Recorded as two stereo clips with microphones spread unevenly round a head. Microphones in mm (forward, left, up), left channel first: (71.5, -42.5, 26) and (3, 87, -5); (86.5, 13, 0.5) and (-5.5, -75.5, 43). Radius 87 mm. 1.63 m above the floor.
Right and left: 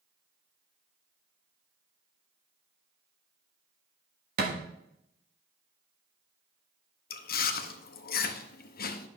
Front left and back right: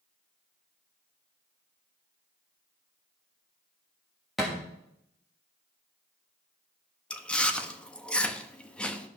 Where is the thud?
150° left, 1.3 m.